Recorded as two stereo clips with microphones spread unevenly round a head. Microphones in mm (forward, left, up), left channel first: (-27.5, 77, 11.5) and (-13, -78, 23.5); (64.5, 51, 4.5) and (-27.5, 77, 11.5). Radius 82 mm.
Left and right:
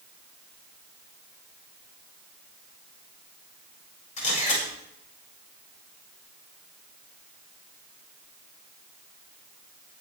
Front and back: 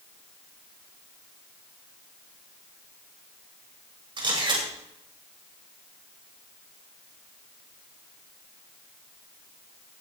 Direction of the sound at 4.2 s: 135° left.